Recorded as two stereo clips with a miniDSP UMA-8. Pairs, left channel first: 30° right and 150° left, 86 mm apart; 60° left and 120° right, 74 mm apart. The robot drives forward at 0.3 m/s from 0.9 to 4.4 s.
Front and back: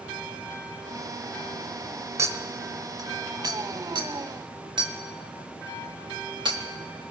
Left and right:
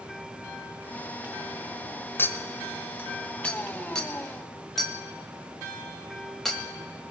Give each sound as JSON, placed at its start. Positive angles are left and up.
{"t": 2.2, "sound": "a clink", "azimuth_deg": 110, "distance_m": 1.0}